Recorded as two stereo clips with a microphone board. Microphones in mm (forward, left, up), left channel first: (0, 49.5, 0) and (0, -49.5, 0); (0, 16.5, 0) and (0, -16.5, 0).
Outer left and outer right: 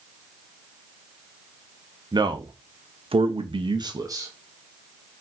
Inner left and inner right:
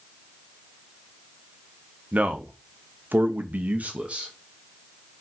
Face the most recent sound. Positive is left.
turn(degrees=-30)  # may be behind; listen again after turning